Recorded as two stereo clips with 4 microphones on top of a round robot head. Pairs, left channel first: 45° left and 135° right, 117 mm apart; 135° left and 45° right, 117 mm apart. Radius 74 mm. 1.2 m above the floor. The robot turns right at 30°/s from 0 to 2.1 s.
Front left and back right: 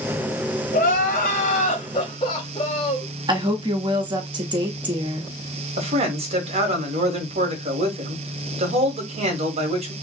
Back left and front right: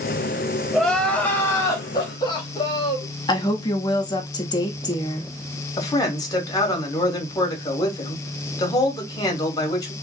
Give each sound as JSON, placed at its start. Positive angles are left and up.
{"t": 0.7, "sound": "crying", "azimuth_deg": 50, "distance_m": 0.8}
{"t": 3.3, "sound": "a woman speaking", "azimuth_deg": -175, "distance_m": 1.0}
{"t": 5.8, "sound": "a man speaking", "azimuth_deg": -165, "distance_m": 1.2}